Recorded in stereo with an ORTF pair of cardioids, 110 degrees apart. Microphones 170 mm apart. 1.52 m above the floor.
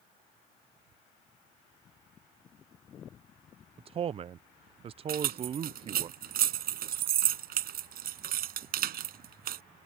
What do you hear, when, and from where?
3.8 s a man speaking: 35° right
5.1 s keys jangling: 60° right